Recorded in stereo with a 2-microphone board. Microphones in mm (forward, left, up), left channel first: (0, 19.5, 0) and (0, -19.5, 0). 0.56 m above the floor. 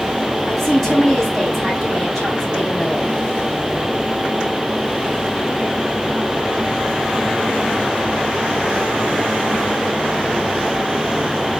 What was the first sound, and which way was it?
A woman speaking, centre (ahead or behind).